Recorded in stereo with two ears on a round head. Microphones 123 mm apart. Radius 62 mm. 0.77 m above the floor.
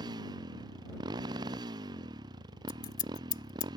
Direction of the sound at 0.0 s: 30° right (ahead or behind).